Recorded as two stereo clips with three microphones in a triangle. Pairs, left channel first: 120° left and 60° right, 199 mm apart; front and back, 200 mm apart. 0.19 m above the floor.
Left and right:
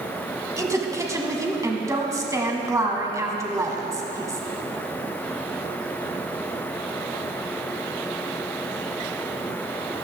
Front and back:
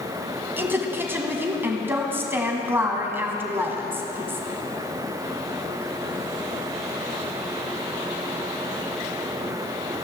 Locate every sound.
0.6 s a woman speaking: 115° right, 1.3 m